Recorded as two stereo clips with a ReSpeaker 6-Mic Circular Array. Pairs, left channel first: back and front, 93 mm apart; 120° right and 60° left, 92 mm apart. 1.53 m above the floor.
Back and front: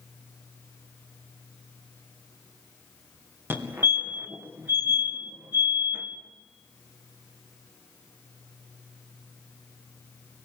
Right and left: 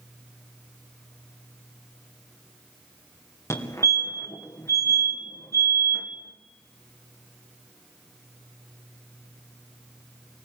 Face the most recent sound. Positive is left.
turn(degrees=-65)